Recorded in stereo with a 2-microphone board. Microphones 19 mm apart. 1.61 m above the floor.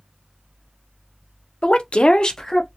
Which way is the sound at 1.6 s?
55° left (ahead or behind).